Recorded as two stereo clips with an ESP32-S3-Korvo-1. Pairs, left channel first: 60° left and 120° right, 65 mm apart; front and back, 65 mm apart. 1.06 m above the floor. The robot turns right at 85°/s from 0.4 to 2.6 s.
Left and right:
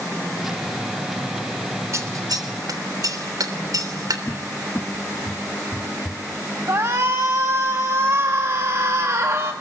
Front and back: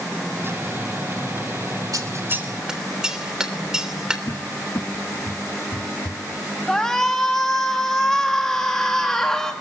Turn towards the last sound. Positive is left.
turn(degrees=-80)